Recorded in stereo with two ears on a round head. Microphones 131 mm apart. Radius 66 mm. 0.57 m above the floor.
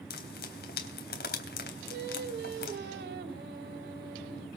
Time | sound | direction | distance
0.1 | frying | 75° left (ahead or behind) | 3.5 m
1.9 | singing | 75° right (ahead or behind) | 2 m